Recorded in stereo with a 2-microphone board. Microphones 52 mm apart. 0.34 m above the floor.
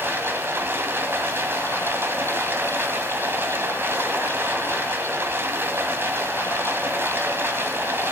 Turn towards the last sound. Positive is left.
turn(degrees=-45)  # may be behind; listen again after turning